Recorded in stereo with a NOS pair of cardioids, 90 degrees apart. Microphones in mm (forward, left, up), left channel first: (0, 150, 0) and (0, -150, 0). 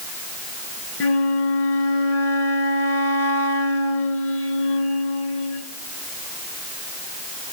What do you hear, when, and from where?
1.0 s a flute: 50° left, 3.5 m